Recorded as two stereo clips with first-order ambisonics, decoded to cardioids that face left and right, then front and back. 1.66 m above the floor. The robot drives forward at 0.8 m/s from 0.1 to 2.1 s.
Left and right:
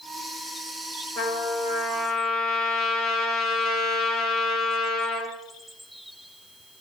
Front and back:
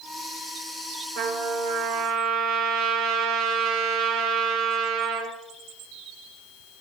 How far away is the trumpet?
About 3 m.